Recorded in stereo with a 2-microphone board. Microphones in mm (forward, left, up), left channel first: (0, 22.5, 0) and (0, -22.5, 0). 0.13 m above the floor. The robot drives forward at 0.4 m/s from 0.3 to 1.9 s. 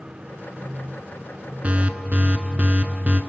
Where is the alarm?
30° right (ahead or behind), 1.1 m.